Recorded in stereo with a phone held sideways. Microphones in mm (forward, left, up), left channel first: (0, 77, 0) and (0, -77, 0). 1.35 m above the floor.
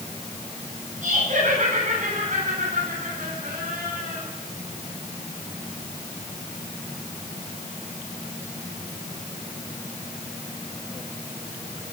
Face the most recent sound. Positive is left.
turn(degrees=-70)  # may be behind; listen again after turning